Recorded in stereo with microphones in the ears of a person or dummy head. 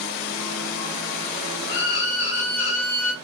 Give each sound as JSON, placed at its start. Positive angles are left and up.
{"t": 1.7, "sound": "a violin", "side_deg": 60, "distance_m": 1.3}